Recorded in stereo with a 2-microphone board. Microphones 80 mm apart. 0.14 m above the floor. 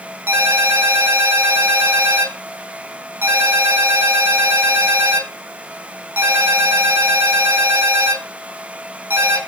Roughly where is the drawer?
No drawer in this recording.